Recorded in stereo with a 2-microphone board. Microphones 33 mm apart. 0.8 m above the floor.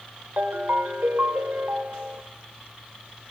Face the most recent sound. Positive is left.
turn(degrees=-75)  # may be behind; listen again after turning